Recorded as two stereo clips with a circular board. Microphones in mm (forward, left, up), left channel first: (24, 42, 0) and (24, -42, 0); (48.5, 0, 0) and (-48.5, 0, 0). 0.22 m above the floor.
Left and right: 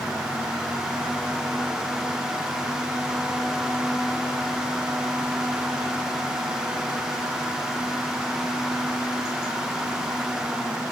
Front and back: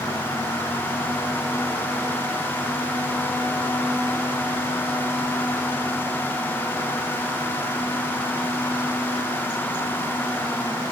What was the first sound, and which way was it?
Only background noise.